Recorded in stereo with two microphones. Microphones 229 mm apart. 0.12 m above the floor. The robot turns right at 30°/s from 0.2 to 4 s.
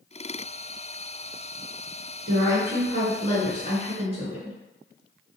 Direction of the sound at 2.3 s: 105° right.